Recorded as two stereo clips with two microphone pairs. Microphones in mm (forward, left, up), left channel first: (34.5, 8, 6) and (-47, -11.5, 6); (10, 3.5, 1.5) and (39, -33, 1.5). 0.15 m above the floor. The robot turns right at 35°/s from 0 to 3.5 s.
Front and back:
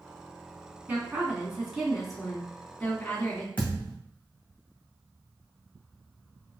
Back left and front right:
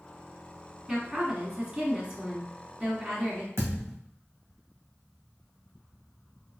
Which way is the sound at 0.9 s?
120° right.